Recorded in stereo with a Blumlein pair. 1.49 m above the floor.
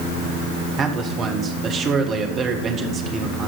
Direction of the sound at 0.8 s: 25° right.